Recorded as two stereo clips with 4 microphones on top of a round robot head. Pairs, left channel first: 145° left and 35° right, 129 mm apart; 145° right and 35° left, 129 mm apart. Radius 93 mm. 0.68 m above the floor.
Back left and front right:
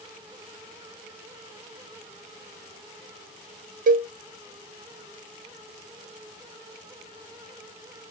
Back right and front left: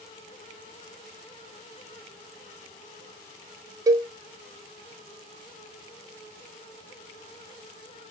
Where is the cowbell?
30° right, 0.5 m.